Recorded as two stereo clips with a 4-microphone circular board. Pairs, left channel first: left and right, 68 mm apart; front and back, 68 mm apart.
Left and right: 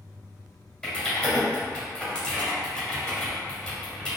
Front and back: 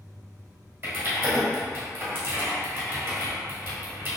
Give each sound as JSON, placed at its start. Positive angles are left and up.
{"t": 0.8, "sound": "typing on a keyboard", "azimuth_deg": 160, "distance_m": 1.6}